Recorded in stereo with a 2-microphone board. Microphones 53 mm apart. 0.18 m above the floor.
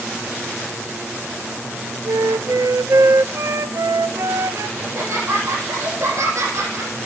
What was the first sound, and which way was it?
A flute, 85° right.